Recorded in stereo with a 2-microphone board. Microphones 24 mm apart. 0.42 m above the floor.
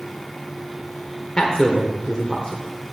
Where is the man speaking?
30° left (ahead or behind), 1.2 m.